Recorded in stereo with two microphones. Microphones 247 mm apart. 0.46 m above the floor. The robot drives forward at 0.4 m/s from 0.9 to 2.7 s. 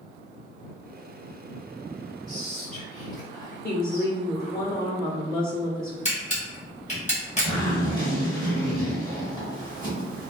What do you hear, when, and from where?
2.3 s whispering: 5° left (ahead or behind), 1.2 m
3.6 s a woman speaking: 40° left (ahead or behind), 0.9 m
6.0 s a camera shutter: 30° left (ahead or behind), 1.2 m
7.5 s a zipper: 15° left (ahead or behind), 1.5 m